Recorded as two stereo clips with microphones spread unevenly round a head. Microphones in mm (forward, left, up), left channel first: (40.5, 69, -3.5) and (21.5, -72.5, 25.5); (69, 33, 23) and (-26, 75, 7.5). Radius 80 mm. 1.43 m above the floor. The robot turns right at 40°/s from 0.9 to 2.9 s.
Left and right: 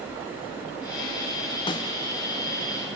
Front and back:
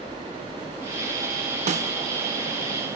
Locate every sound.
1.7 s a snare drum: 150° left, 0.7 m; by 1.9 s 155° left, 0.7 m